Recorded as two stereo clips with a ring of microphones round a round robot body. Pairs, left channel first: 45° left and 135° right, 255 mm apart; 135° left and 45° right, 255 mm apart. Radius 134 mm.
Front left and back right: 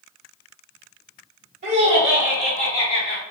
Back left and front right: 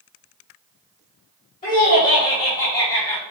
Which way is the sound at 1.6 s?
170° right.